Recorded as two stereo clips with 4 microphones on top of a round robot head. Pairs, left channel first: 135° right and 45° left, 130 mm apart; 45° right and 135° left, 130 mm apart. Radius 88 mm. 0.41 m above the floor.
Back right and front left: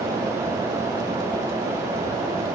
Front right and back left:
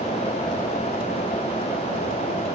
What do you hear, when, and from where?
Only background noise.